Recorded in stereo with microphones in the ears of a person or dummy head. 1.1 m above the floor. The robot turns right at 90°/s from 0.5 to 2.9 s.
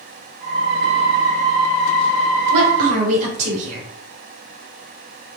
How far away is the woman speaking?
About 2 m.